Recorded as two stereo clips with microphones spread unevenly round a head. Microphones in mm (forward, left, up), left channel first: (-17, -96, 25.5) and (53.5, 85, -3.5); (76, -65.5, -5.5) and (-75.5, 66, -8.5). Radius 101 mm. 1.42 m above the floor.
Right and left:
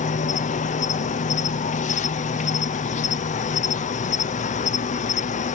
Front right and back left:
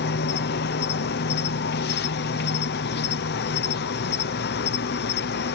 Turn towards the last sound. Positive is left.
turn(degrees=-60)